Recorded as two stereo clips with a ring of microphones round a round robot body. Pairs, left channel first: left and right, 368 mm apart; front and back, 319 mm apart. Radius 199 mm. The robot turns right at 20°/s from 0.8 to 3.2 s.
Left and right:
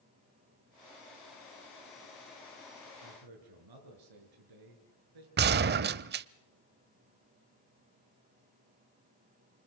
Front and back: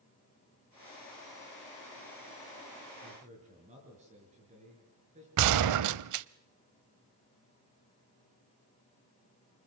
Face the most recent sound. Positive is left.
turn(degrees=-150)